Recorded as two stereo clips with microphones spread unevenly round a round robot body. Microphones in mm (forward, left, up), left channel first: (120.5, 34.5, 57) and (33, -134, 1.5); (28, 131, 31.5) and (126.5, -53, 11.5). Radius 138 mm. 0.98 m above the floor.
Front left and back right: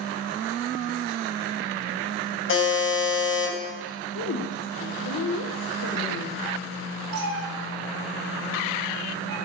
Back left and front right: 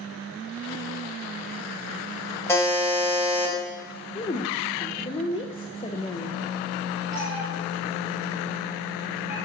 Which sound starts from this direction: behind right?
A cat meowing, at 7.1 s.